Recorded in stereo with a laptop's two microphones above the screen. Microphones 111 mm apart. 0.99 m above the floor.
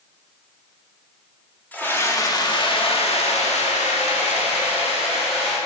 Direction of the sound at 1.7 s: 15° left (ahead or behind).